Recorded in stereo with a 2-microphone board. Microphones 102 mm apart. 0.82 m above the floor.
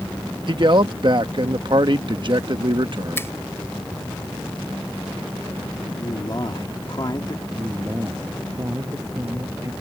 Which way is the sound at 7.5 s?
30° right (ahead or behind).